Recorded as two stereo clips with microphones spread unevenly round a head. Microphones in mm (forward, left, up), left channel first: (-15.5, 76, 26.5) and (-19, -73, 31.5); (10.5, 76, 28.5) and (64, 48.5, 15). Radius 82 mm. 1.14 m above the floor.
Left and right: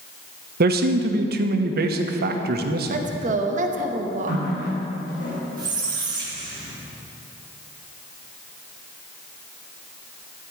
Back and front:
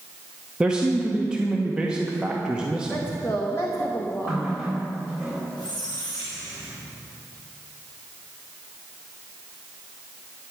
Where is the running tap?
55° left, 4 m.